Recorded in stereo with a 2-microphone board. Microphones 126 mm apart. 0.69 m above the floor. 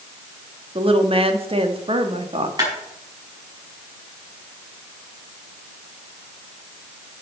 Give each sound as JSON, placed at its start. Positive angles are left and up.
{"t": 0.8, "sound": "a woman speaking", "side_deg": -50, "distance_m": 1.1}
{"t": 2.6, "sound": "a clap", "side_deg": -30, "distance_m": 5.0}